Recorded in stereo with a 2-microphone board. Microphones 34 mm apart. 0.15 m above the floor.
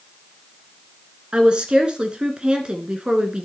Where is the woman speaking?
30° right (ahead or behind), 1.7 m.